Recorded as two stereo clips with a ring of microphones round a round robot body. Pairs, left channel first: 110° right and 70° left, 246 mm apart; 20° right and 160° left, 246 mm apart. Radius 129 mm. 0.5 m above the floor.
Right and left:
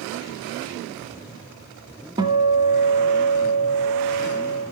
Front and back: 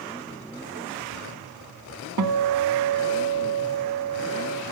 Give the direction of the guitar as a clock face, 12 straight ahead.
7 o'clock.